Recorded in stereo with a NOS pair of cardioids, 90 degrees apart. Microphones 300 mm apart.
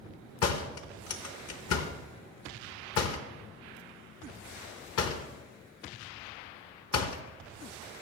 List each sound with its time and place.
0.4 s a door slam: 55° left, 1.0 m